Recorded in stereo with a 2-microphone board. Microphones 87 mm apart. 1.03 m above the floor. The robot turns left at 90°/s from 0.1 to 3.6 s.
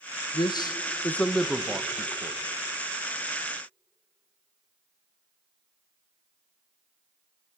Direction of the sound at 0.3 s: 55° left (ahead or behind).